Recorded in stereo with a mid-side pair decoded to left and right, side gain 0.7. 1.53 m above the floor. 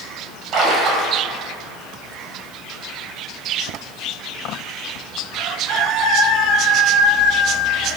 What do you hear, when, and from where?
0.5 s a splash: 45° right, 3.5 m